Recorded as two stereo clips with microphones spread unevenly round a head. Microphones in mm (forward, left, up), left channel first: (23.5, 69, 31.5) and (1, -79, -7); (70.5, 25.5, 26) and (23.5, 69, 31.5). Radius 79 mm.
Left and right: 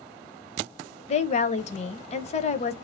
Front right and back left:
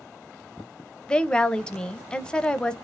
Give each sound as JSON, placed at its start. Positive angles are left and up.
{"t": 1.1, "sound": "a woman speaking", "azimuth_deg": 30, "distance_m": 0.6}